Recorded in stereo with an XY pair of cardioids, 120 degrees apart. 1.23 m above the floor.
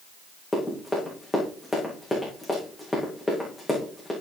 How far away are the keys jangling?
I don't hear keys jangling.